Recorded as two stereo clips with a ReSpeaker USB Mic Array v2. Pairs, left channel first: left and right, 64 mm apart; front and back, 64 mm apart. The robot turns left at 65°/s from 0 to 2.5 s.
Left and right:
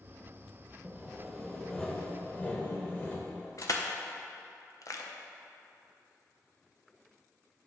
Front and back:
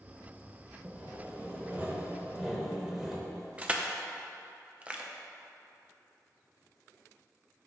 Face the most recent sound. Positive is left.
turn(degrees=110)